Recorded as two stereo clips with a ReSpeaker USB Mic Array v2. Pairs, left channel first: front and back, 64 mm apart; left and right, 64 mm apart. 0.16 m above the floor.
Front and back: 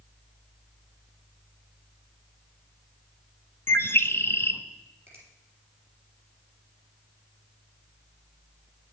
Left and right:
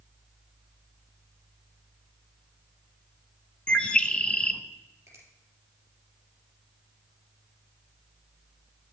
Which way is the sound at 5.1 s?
135° right.